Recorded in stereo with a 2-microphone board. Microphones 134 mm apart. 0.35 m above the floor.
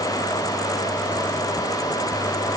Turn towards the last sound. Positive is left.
No sound to turn to.